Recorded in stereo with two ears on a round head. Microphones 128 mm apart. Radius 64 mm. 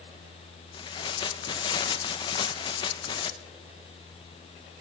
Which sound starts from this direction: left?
Tearing paper, at 0.7 s.